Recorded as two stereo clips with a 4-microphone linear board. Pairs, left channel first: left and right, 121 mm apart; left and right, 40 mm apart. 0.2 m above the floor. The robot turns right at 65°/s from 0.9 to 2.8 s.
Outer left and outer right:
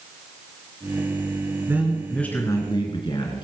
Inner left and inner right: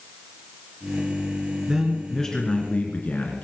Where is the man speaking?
25° right, 3 m; by 3.4 s 50° left, 3 m.